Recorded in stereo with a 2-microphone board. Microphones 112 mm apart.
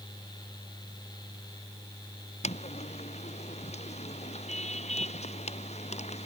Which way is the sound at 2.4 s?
80° left.